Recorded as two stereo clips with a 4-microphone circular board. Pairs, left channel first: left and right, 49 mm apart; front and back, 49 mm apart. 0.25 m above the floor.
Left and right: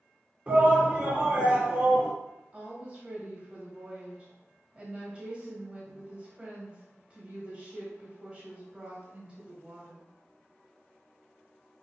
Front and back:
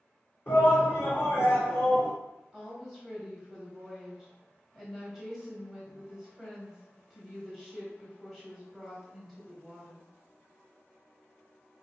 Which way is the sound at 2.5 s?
85° right.